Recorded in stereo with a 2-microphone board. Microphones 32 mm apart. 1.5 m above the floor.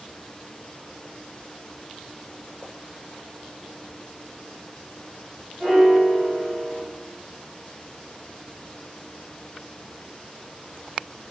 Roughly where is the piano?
Centre.